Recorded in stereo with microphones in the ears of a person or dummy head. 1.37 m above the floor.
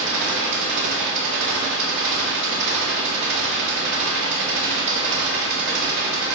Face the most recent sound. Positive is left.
turn(degrees=-65)  # may be behind; listen again after turning